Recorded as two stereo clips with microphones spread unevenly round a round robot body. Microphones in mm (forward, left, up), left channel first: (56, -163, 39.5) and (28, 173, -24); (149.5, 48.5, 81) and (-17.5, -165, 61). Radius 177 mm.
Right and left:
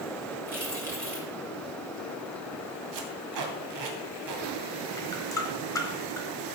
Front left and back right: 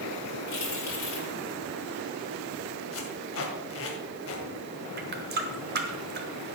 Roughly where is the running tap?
Behind.